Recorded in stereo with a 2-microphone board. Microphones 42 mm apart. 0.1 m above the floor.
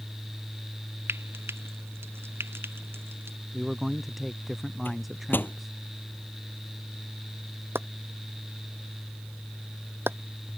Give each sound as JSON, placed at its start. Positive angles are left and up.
{"t": 1.1, "sound": "frying", "side_deg": -85}
{"t": 3.5, "sound": "a man speaking", "side_deg": -5}
{"t": 4.8, "sound": "a microwave", "side_deg": 55}
{"t": 7.8, "sound": "chopping", "side_deg": -70}